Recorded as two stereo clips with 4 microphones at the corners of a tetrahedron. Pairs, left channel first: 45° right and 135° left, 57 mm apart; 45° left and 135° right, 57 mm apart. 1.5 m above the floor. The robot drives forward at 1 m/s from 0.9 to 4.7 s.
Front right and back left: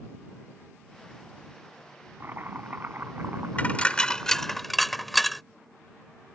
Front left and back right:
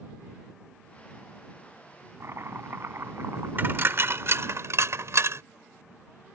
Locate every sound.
2.2 s chopping: 175° right
3.6 s a dropped coin: 100° right; by 5.4 s 135° right